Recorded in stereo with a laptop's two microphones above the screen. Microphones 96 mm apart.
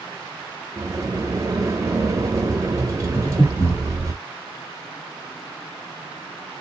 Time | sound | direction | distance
0.8 | a sliding door | 35° right (ahead or behind) | 0.6 m
3.1 | breathing | 60° left (ahead or behind) | 1.5 m